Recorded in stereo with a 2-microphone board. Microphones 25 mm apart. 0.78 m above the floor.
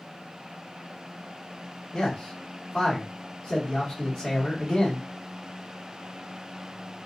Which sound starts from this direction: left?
A man speaking, at 1.9 s.